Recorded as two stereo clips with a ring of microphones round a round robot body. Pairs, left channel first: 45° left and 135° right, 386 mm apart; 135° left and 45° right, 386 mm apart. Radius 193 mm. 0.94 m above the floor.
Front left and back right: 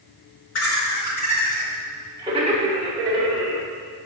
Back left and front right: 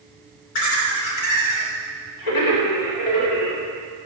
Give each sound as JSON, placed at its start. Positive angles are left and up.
{"t": 0.6, "sound": "laughter", "azimuth_deg": 100, "distance_m": 3.0}